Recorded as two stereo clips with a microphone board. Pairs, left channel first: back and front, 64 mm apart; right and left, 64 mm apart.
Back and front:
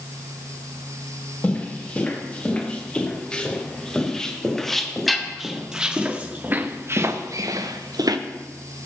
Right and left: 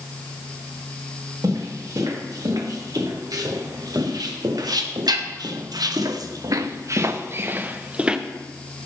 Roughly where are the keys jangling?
No keys jangling in this recording.